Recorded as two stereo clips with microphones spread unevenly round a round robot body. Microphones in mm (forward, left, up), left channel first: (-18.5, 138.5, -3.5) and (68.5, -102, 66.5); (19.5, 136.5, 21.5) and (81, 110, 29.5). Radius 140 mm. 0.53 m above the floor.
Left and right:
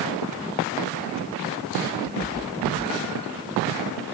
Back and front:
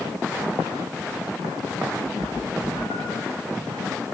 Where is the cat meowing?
Straight behind, 7.5 m; by 3.3 s 175° right, 7.5 m.